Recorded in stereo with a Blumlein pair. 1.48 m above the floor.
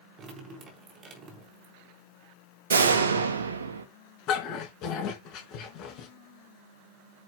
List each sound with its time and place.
0.2 s dripping: 25° right, 4.5 m
2.7 s a door slam: 70° right, 1.8 m
4.3 s a dog barking: 35° left, 4.5 m